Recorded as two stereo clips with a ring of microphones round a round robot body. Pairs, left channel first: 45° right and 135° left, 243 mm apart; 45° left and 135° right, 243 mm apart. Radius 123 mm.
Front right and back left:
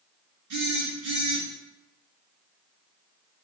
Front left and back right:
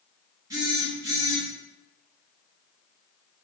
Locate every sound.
0.5 s a phone buzzing: 150° left, 1.8 m